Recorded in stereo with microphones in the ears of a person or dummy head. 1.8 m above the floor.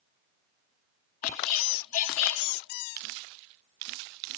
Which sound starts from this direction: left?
A squeak, at 1.2 s.